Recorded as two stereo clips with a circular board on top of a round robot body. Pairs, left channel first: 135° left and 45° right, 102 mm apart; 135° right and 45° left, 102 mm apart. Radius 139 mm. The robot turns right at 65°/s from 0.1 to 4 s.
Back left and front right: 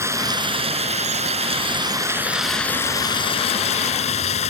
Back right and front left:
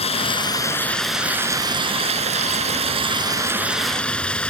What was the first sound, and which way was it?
Running water, 110° right.